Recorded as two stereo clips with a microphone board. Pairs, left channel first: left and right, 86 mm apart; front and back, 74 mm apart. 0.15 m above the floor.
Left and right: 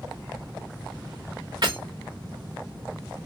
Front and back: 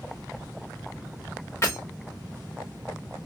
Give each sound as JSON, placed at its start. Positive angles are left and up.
{"t": 1.6, "sound": "breaking glass", "azimuth_deg": -55, "distance_m": 3.0}